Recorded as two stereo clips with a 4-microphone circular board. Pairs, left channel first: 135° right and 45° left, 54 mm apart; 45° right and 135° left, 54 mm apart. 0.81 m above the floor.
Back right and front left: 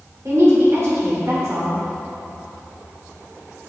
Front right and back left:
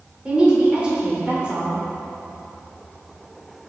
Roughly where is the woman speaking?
Ahead left.